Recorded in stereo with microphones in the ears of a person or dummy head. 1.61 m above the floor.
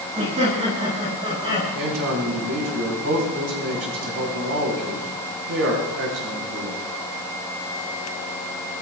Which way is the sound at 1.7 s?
75° right (ahead or behind).